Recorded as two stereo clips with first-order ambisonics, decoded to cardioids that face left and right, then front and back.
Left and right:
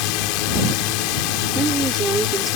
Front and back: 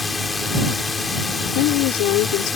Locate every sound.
0.0 s a drone: 80° left
1.6 s a woman speaking: 20° right